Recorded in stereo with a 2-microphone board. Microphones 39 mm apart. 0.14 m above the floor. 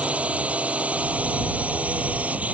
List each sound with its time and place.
0.0 s a drone: 40° right (ahead or behind); by 2.5 s 45° right (ahead or behind)